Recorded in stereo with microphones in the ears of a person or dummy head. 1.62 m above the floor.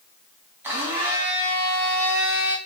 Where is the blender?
10° right (ahead or behind), 1.3 m.